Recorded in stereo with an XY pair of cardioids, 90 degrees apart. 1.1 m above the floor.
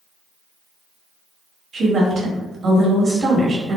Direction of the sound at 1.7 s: 50° right.